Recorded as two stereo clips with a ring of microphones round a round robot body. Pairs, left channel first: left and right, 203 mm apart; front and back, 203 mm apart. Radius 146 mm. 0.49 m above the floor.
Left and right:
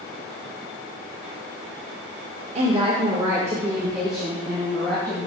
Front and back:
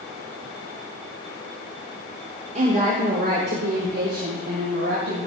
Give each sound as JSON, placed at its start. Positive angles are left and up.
{"t": 2.5, "sound": "a woman speaking", "azimuth_deg": -135, "distance_m": 1.4}